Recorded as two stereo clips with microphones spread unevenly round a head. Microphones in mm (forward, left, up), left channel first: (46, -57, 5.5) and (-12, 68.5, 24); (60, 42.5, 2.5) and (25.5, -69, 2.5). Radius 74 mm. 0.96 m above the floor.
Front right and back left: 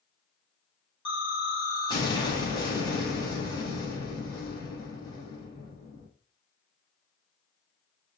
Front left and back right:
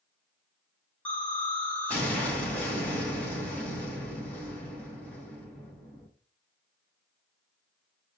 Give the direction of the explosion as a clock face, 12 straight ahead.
12 o'clock.